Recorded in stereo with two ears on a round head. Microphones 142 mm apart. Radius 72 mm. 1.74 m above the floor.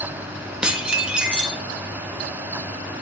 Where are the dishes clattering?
5° right (ahead or behind), 1.7 m.